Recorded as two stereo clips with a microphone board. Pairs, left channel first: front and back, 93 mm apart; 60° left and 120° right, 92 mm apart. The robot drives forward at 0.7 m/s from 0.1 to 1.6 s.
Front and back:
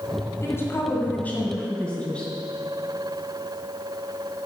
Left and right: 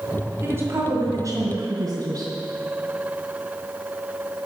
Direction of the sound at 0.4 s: 60° right.